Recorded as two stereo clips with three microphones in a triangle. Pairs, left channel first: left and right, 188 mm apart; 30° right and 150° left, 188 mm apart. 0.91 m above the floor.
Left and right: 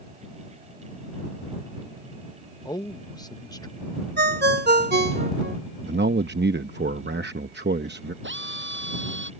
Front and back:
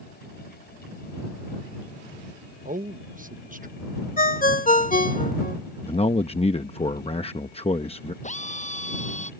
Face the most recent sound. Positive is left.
turn(degrees=-80)